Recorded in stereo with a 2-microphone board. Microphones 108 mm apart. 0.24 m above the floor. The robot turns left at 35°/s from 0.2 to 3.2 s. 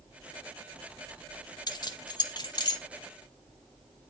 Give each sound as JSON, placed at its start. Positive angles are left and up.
{"t": 1.7, "sound": "keys jangling", "side_deg": 40, "distance_m": 0.8}